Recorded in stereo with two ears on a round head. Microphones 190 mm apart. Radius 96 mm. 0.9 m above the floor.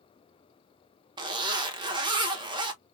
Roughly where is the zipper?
Right.